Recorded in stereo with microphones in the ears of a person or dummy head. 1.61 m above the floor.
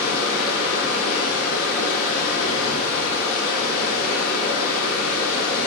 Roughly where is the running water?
Left.